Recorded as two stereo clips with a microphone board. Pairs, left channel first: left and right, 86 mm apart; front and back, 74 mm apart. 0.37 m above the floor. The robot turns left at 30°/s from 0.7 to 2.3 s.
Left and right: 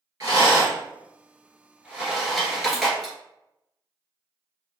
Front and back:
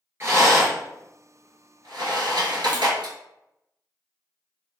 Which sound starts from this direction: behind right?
A rattle, at 0.2 s.